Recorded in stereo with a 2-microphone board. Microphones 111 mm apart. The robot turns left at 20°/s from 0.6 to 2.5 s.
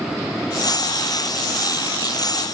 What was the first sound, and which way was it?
Only background noise.